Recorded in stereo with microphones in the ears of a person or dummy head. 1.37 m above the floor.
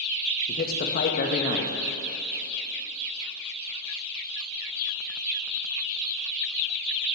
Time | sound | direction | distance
0.5 | a man speaking | 55° left (ahead or behind) | 1.4 m